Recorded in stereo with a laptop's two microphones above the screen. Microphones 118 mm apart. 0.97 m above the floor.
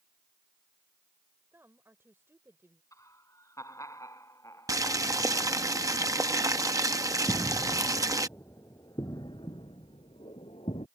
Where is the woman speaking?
20° right (ahead or behind).